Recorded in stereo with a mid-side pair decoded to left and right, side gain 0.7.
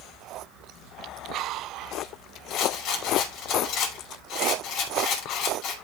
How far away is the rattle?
About 5.5 m.